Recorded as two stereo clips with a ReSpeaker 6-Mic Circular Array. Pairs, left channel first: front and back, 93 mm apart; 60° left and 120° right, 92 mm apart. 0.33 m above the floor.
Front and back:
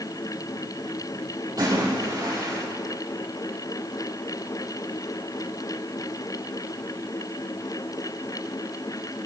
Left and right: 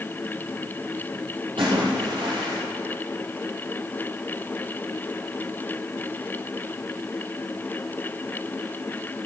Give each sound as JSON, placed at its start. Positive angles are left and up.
{"t": 1.6, "sound": "a splash", "azimuth_deg": -130, "distance_m": 5.5}